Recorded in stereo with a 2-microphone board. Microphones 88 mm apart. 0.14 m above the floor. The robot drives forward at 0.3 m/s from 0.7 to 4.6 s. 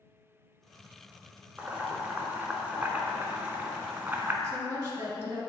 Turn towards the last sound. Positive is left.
turn(degrees=-25)  # may be behind; listen again after turning